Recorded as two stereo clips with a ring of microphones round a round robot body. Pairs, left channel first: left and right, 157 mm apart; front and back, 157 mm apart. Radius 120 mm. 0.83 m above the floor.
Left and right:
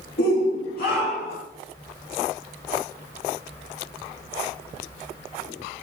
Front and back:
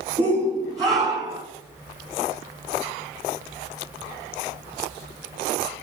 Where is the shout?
110° left, 1.7 m; by 1.4 s 115° left, 2.5 m.